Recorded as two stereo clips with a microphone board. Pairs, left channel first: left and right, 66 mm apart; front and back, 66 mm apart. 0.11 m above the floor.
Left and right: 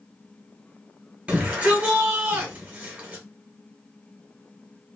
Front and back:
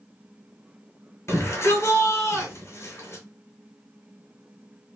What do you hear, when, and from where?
1.3 s a shout: 25° right, 1.5 m